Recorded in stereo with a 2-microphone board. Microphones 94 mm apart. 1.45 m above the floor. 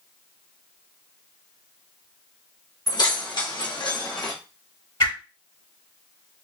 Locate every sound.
2.9 s keys jangling: 45° left (ahead or behind), 1.1 m
5.0 s a whoosh: 60° left (ahead or behind), 1.7 m